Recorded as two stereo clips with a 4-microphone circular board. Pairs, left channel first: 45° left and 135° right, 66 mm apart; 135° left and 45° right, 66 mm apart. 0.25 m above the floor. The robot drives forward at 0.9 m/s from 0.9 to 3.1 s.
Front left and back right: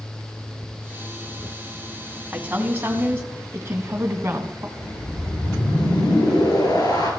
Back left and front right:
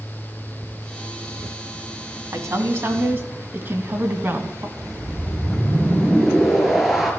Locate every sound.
2.3 s a woman speaking: 70° right, 2.5 m; by 4.7 s 90° right, 2.5 m
4.8 s a whoosh: 40° left, 4 m